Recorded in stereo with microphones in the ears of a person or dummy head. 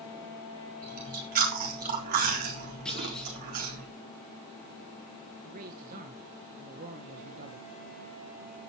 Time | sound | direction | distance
0.8 | chewing | 45° right (ahead or behind) | 3.5 m
2.9 | a clunk | 5° left (ahead or behind) | 4 m
5.4 | a man speaking | 45° right (ahead or behind) | 1.6 m